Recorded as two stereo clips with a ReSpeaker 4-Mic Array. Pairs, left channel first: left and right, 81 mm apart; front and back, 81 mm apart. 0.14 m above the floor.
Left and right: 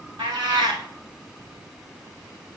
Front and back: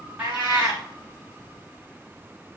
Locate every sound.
0.2 s a cat meowing: 110° right, 3 m